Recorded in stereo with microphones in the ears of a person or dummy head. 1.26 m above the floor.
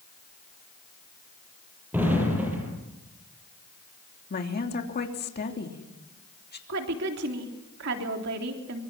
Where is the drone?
No drone in this recording.